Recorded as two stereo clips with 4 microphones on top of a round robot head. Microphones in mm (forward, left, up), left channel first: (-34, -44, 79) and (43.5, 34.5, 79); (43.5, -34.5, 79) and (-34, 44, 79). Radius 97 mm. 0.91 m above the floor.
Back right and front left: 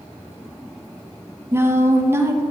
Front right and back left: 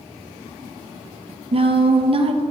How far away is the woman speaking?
About 0.9 m.